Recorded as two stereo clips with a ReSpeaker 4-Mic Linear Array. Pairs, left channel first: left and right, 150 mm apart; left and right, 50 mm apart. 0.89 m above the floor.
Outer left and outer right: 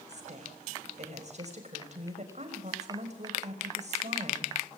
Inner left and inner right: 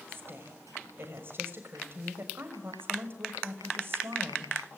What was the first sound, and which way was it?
A woman speaking, 50° right (ahead or behind).